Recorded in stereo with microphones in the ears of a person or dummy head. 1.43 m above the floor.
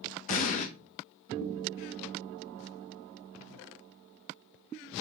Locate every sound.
0.3 s an explosion: 45° left (ahead or behind), 0.7 m